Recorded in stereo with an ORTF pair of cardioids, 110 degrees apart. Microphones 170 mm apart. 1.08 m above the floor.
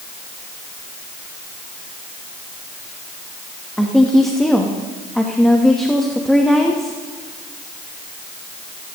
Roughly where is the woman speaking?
Ahead.